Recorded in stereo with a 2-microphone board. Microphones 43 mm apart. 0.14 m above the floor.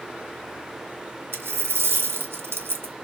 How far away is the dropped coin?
About 1.2 m.